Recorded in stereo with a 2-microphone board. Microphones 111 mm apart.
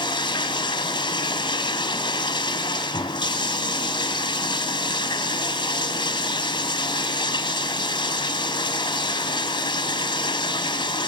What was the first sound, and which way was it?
Running water, 40° left (ahead or behind).